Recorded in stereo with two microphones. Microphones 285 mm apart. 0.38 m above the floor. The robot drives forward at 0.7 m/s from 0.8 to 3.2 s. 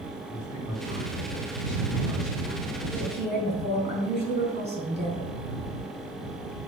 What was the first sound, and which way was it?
A man speaking, 60° left (ahead or behind).